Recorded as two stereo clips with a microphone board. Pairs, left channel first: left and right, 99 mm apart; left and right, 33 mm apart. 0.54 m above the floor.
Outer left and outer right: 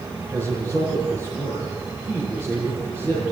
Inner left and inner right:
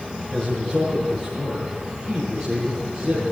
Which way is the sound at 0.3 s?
20° left (ahead or behind).